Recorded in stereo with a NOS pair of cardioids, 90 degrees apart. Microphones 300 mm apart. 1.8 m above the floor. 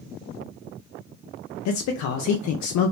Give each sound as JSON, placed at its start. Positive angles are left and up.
{"t": 1.6, "sound": "a man speaking", "azimuth_deg": 65, "distance_m": 0.5}